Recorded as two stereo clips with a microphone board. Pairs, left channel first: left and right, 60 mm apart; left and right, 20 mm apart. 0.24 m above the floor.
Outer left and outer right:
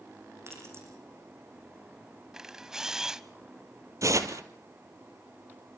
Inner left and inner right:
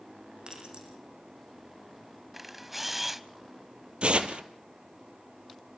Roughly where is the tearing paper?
Right.